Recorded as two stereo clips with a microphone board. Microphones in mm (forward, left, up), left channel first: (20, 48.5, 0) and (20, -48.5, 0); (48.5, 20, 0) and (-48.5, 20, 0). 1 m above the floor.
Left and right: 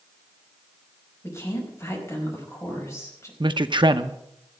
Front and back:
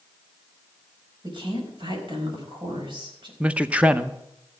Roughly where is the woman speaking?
Behind left.